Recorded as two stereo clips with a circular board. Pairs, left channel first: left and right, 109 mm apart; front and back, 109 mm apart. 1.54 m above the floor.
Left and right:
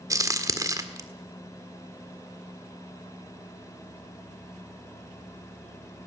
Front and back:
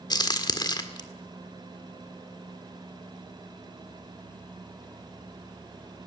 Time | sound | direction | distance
0.1 | a crack | 40° right | 1.6 m